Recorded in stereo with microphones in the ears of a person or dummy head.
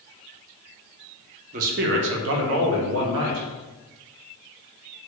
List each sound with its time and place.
1.5 s a man speaking: 40° right (ahead or behind), 0.7 m; by 3.5 s 65° right (ahead or behind), 1.0 m